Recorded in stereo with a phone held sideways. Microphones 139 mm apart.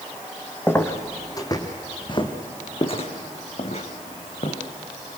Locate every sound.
0.7 s footsteps: 15° left (ahead or behind), 2 m; by 4.6 s 55° left (ahead or behind), 3.5 m